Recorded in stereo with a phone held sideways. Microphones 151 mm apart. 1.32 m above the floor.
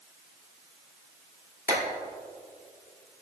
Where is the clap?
70° left (ahead or behind), 2.5 m.